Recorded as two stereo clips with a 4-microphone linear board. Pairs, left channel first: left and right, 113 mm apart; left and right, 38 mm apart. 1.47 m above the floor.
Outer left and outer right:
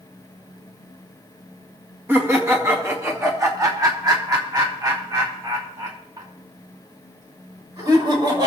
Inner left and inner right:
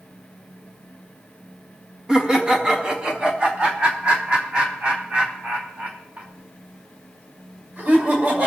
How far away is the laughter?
About 2 m.